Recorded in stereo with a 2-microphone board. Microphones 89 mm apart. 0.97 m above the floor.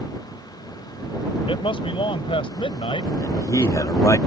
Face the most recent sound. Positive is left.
turn(degrees=40)  # may be behind; listen again after turning